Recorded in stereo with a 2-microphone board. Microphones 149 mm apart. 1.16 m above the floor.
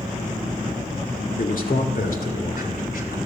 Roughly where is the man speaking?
Left.